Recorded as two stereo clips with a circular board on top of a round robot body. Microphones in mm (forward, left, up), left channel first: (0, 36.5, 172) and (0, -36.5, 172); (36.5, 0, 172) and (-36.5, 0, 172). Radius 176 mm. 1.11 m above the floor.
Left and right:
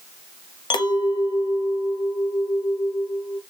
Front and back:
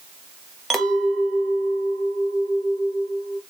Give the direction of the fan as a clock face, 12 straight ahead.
No fan in this recording.